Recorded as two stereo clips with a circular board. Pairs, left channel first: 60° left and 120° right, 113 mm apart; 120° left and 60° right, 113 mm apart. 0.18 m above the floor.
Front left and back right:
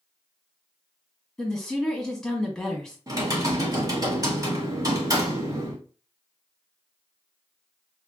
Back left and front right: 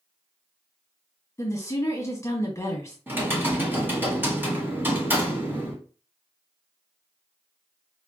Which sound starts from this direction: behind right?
Typing on a keyboard, at 3.1 s.